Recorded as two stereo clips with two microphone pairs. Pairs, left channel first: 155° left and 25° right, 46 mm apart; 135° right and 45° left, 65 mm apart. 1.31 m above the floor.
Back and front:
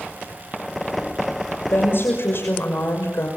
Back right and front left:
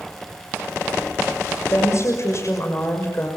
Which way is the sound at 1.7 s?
170° right.